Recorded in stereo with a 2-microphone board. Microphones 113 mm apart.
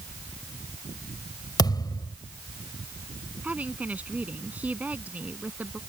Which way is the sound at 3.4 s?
15° right (ahead or behind).